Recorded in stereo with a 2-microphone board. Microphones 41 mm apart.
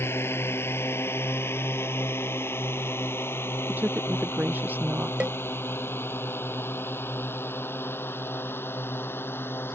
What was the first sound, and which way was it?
A drone, 75° left (ahead or behind).